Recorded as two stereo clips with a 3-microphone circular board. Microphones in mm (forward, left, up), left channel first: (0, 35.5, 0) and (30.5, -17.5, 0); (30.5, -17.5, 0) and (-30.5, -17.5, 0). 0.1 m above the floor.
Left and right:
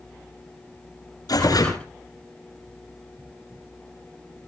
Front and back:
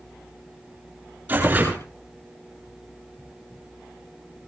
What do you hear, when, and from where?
1.3 s tearing paper: 125° left, 8.5 m